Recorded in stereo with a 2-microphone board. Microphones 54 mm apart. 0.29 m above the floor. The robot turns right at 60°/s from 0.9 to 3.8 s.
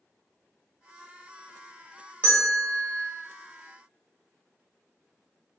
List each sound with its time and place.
2.2 s a bell: 30° left (ahead or behind), 1.1 m; by 3.0 s 20° left (ahead or behind), 1.1 m